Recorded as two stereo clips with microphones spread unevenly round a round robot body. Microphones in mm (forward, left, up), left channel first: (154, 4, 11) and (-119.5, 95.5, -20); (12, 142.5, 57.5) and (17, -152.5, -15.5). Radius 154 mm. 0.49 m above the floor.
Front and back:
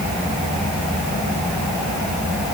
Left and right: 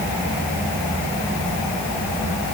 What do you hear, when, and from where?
Only background noise.